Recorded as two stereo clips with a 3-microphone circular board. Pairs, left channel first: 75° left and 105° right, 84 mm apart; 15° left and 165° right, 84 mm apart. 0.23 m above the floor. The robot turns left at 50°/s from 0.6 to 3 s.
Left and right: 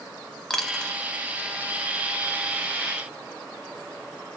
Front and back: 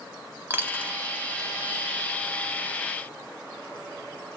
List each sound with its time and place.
0.5 s a dropped coin: 155° left, 0.6 m; by 0.9 s 140° left, 0.6 m